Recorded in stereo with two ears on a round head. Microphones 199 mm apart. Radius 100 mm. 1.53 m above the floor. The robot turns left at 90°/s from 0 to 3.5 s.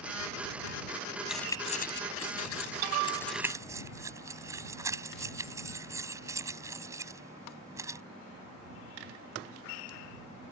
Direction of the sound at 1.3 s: 5° right (ahead or behind).